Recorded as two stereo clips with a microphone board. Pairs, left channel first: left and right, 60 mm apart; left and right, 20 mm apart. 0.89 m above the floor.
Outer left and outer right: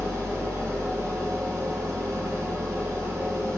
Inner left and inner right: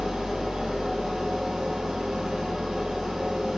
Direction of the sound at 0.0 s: 45° right (ahead or behind).